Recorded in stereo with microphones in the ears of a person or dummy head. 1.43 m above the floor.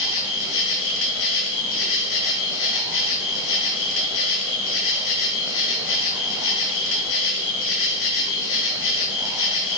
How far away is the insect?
About 1.9 m.